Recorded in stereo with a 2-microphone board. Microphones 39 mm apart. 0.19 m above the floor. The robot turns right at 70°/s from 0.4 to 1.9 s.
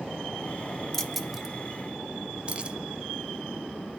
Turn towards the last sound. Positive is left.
turn(degrees=-35)  # may be behind; listen again after turning